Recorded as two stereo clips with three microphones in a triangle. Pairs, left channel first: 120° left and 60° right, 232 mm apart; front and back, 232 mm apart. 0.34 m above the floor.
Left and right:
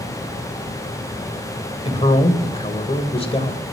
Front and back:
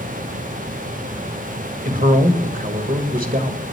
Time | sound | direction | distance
1.9 | a man speaking | 170° left | 1.7 m